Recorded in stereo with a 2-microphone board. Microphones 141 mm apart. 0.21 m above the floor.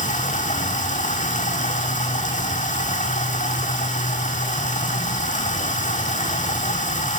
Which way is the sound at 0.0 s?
65° left (ahead or behind).